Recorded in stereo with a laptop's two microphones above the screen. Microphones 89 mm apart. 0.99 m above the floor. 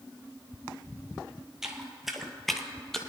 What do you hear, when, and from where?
1.6 s footsteps: 5° right (ahead or behind), 1.1 m; by 3.0 s 5° left (ahead or behind), 1.3 m